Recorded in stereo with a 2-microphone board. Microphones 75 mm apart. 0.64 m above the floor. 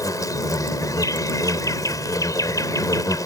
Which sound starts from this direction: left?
An insect, at 0.0 s.